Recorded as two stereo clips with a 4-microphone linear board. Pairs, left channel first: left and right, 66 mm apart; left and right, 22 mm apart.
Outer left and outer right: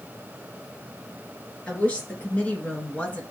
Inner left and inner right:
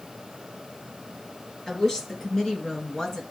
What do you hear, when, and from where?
1.7 s a woman speaking: 20° left (ahead or behind), 4.5 m